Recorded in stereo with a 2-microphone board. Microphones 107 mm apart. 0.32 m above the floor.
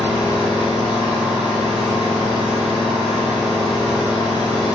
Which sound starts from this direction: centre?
An engine running, at 0.0 s.